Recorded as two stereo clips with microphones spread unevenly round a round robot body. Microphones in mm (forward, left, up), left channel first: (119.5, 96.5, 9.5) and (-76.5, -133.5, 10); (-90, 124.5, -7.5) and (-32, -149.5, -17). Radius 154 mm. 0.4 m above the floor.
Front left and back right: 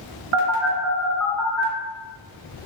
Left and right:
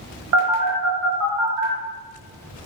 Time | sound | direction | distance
0.3 | a phone buzzing | 95° right | 1.4 m